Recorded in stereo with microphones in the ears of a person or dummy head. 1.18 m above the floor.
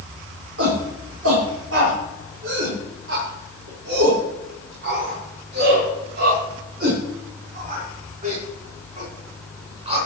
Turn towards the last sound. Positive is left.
turn(degrees=-35)  # may be behind; listen again after turning